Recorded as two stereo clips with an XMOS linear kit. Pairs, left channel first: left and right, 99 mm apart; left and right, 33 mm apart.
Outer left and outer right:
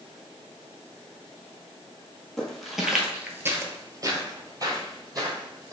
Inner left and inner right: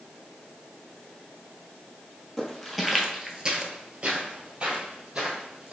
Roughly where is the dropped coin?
No dropped coin in this recording.